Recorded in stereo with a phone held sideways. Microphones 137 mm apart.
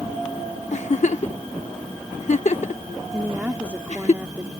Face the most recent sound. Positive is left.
turn(degrees=-10)  # may be behind; listen again after turning